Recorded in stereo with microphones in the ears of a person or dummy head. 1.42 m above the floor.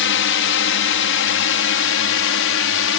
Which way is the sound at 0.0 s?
60° left (ahead or behind).